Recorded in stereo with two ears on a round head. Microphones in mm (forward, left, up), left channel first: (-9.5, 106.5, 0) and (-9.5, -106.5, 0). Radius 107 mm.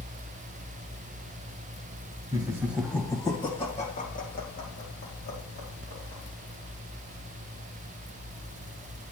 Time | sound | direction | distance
2.3 | laughter | 20° right (ahead or behind) | 1.1 m